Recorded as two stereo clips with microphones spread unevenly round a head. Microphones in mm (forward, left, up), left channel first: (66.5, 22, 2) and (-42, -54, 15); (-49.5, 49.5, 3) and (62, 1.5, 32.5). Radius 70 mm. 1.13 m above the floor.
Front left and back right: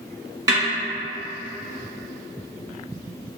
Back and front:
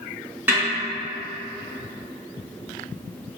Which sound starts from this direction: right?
A snare drum, at 0.5 s.